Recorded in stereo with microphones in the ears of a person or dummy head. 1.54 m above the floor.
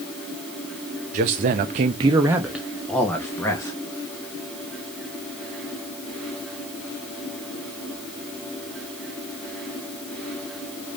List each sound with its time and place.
1.1 s a man speaking: 45° right (ahead or behind), 0.7 m; by 3.8 s 15° left (ahead or behind), 1.3 m